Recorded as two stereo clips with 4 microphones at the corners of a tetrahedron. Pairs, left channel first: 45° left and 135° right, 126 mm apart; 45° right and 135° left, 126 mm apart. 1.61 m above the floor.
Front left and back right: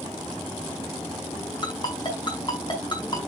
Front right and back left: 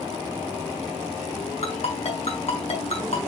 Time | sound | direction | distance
1.6 | a ringtone | 10° right | 5 m